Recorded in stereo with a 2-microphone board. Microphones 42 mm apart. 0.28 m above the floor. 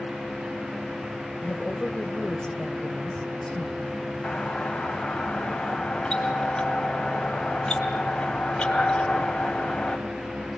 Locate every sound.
1.4 s a woman speaking: 20° left (ahead or behind), 0.9 m
4.2 s a doorbell: 20° left (ahead or behind), 2.5 m